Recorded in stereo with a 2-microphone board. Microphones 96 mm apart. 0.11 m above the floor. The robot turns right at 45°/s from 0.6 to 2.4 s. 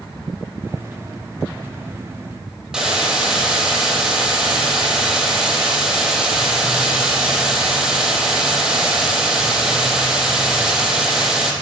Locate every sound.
2.7 s a hiss: 5° right (ahead or behind), 0.6 m